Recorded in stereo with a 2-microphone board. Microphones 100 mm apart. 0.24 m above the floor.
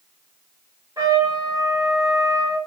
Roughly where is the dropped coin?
No dropped coin in this recording.